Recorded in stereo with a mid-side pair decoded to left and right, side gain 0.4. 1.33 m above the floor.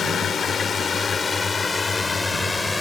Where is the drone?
55° left; by 2.8 s 15° left.